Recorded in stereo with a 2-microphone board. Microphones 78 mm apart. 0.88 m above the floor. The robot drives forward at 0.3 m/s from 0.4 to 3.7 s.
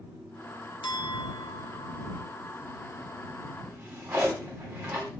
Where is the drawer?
15° right (ahead or behind), 1.9 m.